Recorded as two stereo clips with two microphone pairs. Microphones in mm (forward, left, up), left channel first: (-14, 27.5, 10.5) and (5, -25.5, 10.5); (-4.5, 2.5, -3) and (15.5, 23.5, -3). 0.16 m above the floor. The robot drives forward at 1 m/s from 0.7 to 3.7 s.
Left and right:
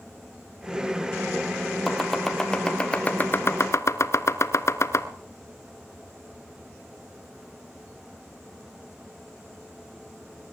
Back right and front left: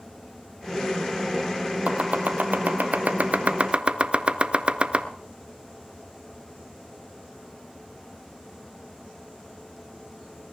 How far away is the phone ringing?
I don't hear a phone ringing.